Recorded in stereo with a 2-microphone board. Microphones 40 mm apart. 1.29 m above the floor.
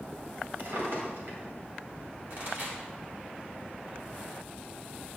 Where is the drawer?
65° right (ahead or behind), 2 m.